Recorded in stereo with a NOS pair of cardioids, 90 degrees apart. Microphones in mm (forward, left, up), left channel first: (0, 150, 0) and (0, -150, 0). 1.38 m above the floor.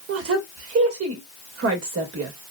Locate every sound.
0.1 s a woman speaking: 50° right, 1.6 m